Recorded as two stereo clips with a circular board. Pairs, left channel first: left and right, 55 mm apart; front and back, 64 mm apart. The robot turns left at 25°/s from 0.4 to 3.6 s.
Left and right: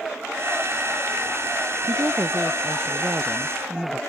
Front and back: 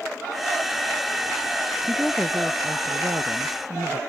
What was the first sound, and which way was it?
A woman speaking, 110° right.